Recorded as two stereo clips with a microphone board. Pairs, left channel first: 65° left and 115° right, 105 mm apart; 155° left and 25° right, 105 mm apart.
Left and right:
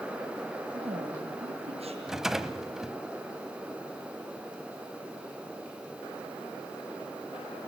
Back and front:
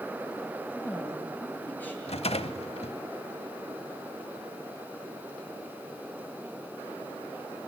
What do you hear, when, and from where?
0.7 s a woman speaking: 130° right, 8 m
2.1 s a rattle: 160° left, 1.1 m